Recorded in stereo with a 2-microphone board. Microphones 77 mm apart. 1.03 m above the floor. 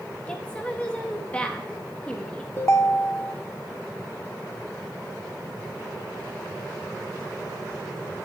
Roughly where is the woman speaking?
Centre.